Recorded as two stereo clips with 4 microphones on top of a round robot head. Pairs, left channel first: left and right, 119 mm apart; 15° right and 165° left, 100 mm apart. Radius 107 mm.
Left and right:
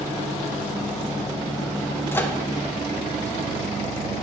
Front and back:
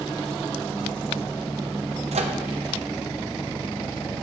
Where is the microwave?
160° left, 0.9 m.